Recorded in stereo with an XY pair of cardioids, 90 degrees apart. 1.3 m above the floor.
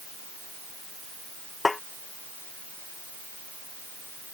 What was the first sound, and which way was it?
A snare drum, 25° left.